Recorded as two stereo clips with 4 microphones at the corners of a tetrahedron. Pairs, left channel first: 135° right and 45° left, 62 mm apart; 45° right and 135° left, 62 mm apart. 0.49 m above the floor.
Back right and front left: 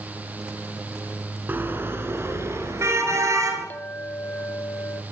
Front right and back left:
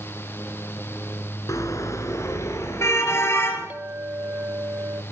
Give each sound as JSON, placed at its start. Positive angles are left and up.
{"t": 1.5, "sound": "a car horn", "azimuth_deg": -15, "distance_m": 3.5}
{"t": 3.7, "sound": "a clink", "azimuth_deg": 175, "distance_m": 0.8}